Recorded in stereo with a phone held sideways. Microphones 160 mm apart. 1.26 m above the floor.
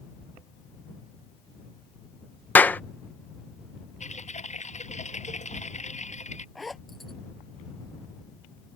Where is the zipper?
Centre (ahead or behind).